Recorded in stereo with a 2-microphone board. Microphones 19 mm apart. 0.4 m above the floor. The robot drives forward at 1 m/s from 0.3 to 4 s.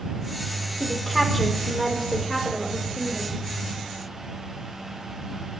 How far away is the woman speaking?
About 1.3 m.